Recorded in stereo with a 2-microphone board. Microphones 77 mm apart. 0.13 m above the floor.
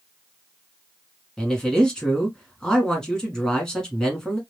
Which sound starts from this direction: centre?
A man speaking, at 1.4 s.